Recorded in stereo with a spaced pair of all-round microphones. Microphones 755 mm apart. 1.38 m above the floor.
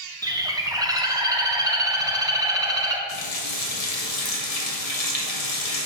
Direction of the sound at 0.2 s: 5° right (ahead or behind).